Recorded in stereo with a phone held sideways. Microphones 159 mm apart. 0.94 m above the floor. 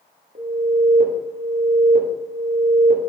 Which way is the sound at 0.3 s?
65° right (ahead or behind).